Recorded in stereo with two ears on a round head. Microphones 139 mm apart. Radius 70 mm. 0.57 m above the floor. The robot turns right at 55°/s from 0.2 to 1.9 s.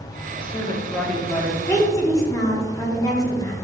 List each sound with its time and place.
0.4 s a woman speaking: 125° left, 0.7 m; by 1.6 s 170° right, 0.7 m
1.7 s a woman speaking: 15° left (ahead or behind), 0.9 m; by 3.5 s 25° left (ahead or behind), 0.9 m